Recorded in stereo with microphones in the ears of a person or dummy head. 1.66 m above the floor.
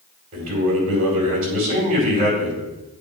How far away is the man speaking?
About 5 m.